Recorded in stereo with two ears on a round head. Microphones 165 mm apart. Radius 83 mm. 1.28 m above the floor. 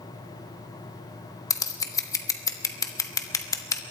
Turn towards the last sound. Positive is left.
turn(degrees=20)  # may be behind; listen again after turning